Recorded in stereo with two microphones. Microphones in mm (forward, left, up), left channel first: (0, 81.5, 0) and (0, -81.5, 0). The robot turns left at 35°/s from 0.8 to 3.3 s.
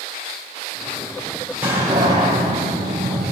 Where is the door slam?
10° right, 4 m; by 3.3 s 70° right, 4 m.